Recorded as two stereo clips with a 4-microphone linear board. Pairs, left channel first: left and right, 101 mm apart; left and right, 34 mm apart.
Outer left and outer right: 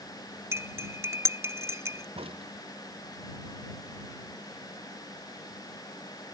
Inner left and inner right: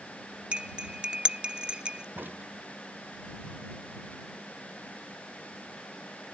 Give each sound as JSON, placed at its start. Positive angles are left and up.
{"t": 0.5, "sound": "cutlery clinking", "side_deg": -30}
{"t": 2.1, "sound": "a crack", "side_deg": -70}